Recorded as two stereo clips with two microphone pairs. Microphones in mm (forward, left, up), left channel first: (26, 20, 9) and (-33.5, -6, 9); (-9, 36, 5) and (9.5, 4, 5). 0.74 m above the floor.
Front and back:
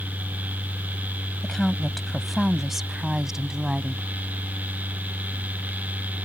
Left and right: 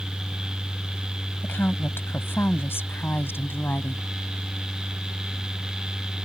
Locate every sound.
1.4 s a woman speaking: 105° left; by 4.1 s 125° left